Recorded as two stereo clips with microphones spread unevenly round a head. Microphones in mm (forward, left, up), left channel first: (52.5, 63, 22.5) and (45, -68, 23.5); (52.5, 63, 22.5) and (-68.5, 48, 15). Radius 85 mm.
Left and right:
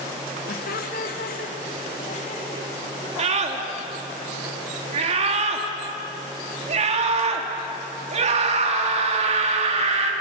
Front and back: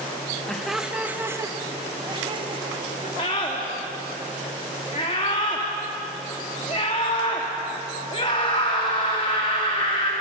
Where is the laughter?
90° left, 2.5 m; by 3.1 s 150° left, 4.5 m.